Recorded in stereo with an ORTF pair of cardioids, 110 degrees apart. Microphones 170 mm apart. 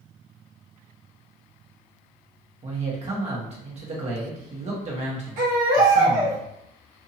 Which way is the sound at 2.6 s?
45° right.